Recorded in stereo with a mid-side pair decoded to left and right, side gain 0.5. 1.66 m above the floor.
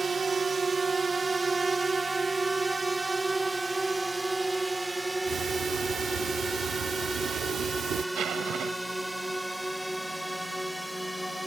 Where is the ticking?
65° right.